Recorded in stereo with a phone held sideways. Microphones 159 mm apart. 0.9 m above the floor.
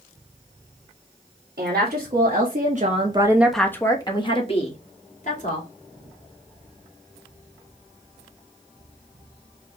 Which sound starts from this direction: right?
A woman speaking, at 1.6 s.